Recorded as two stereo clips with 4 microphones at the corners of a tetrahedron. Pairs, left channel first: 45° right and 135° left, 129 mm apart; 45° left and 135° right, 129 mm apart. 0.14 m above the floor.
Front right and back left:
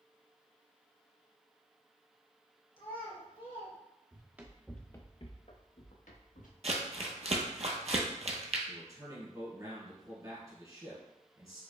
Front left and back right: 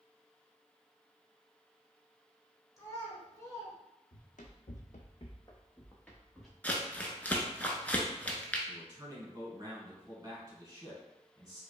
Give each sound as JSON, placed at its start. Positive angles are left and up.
{"t": 2.8, "sound": "a child speaking", "azimuth_deg": -15, "distance_m": 1.4}
{"t": 4.1, "sound": "running footsteps", "azimuth_deg": 70, "distance_m": 0.8}
{"t": 6.6, "sound": "crumpling", "azimuth_deg": 120, "distance_m": 0.6}
{"t": 8.7, "sound": "a man speaking", "azimuth_deg": 180, "distance_m": 1.4}